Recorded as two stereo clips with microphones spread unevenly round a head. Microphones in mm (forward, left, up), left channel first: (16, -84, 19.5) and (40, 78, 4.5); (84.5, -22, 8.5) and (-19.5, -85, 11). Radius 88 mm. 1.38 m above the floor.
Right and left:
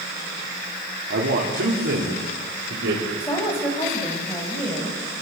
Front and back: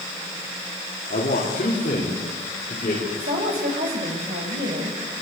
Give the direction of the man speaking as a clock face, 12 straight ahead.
10 o'clock.